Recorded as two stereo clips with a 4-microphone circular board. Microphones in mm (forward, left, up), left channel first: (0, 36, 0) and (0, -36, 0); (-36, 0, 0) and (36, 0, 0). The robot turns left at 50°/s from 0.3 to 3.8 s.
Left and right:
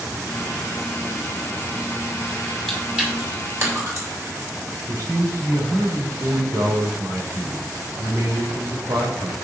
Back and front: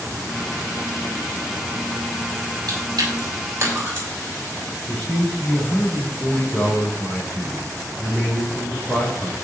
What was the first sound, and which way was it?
Chewing, straight ahead.